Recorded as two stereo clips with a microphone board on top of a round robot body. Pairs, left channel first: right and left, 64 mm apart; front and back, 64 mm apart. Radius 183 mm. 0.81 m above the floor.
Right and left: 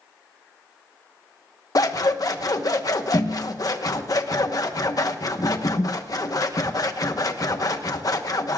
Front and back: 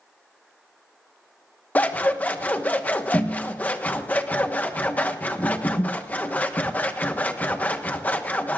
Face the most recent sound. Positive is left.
turn(degrees=-65)